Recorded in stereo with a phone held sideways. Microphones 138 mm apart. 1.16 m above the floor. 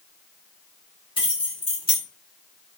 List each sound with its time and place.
1.2 s keys jangling: 40° left (ahead or behind), 2 m